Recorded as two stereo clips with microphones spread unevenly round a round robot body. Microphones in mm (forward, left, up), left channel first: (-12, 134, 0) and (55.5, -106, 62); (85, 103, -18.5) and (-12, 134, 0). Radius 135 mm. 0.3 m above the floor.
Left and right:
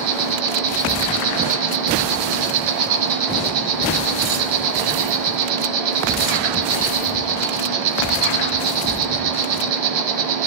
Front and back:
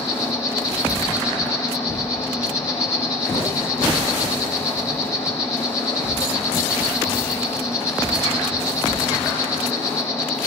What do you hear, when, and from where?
0.0 s an insect: 90° right, 1.1 m